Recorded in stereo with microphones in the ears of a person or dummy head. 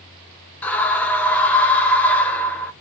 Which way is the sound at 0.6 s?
5° left (ahead or behind).